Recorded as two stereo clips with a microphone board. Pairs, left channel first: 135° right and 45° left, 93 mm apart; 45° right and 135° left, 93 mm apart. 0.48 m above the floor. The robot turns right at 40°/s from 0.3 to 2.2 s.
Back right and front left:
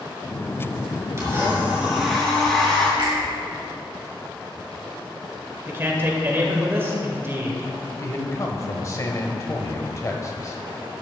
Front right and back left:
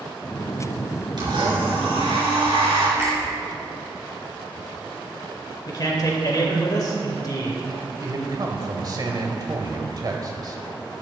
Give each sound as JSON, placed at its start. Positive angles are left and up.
{"t": 1.2, "sound": "a blender", "azimuth_deg": 100, "distance_m": 3.5}
{"t": 3.0, "sound": "a finger snap", "azimuth_deg": 75, "distance_m": 4.0}
{"t": 5.7, "sound": "a man speaking", "azimuth_deg": -15, "distance_m": 2.0}
{"t": 8.0, "sound": "a man speaking", "azimuth_deg": 175, "distance_m": 1.7}